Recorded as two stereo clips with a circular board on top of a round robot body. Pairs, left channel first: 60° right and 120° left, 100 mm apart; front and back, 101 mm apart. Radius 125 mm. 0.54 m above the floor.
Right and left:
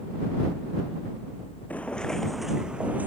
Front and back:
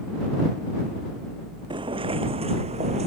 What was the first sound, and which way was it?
Footsteps, 135° right.